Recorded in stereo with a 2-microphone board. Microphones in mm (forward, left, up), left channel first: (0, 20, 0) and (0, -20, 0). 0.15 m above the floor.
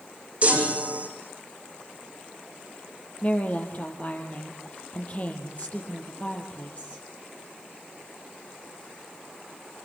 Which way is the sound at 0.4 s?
35° right (ahead or behind).